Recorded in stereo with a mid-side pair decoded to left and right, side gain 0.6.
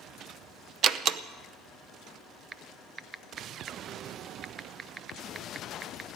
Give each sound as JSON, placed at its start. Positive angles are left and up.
{"t": 0.8, "sound": "a door slam", "azimuth_deg": -55, "distance_m": 0.7}
{"t": 2.5, "sound": "typing on a keyboard", "azimuth_deg": -30, "distance_m": 0.6}